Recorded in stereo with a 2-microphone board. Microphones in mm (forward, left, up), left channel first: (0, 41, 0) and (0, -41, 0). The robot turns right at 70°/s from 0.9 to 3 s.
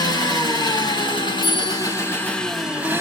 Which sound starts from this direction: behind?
A bell, at 1.4 s.